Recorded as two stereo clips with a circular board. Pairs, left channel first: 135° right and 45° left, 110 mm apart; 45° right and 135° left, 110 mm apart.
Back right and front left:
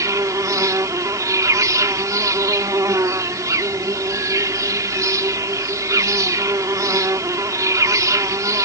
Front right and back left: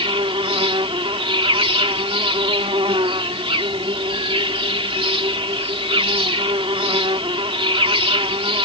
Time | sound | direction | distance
0.0 | an insect | 105° left | ?